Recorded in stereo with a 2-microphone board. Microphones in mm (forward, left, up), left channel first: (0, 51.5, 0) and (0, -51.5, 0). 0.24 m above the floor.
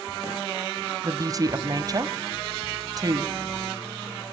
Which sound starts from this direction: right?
A woman speaking, at 1.0 s.